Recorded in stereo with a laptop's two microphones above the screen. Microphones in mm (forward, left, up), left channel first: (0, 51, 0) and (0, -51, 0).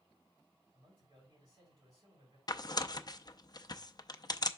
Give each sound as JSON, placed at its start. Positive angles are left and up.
{"t": 0.7, "sound": "a man speaking", "side_deg": -40, "distance_m": 4.5}
{"t": 2.5, "sound": "tearing paper", "side_deg": 40, "distance_m": 0.6}